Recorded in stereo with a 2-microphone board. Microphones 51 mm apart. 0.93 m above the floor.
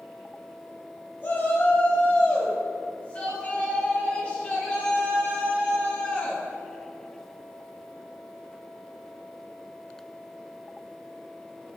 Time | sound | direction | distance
1.2 | a shout | 40° left (ahead or behind) | 6 m